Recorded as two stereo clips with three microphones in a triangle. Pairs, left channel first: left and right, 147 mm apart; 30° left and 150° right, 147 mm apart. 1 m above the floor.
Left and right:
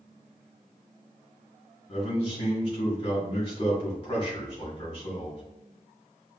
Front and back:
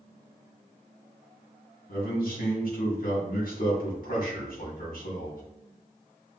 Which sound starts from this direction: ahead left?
A man speaking, at 1.9 s.